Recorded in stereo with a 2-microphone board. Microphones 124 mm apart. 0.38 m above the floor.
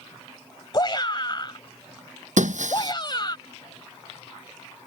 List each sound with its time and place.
0.7 s a shout: 40° left (ahead or behind)
2.4 s breaking glass: 90° right